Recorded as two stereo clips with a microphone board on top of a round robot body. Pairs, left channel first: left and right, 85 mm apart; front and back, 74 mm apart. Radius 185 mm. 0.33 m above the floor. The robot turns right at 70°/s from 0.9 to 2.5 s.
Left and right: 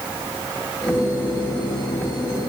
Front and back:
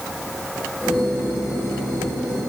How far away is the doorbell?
I don't hear a doorbell.